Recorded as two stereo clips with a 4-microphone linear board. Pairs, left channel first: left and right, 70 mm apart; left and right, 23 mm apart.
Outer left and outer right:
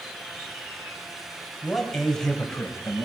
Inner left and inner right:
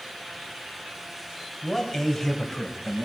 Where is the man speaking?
Centre (ahead or behind), 4 m; by 3.0 s 20° left (ahead or behind), 4 m.